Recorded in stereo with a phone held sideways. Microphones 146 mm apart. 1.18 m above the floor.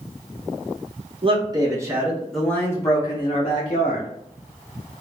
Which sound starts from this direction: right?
A man speaking, at 1.2 s.